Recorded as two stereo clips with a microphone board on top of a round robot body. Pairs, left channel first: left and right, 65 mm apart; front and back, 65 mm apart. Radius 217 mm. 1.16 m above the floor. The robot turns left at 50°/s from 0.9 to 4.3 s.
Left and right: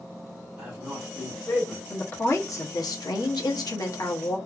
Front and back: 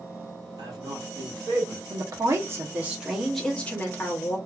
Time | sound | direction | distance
0.6 | a man speaking | 170° right | 2.0 m
1.9 | a woman speaking | 155° left | 0.9 m